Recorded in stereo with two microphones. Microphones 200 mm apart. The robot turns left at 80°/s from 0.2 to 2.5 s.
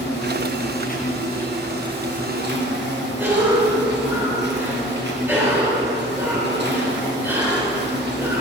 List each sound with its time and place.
0.0 s an insect: 110° left, 1.5 m; by 8.4 s 75° right, 1.5 m
3.2 s a cough: 10° right (ahead or behind), 4.5 m